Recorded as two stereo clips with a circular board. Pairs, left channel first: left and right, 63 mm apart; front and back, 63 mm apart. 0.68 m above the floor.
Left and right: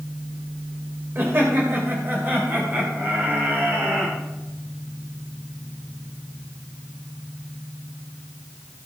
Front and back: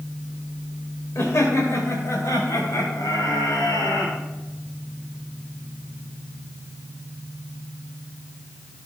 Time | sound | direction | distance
1.1 | laughter | 40° right | 2 m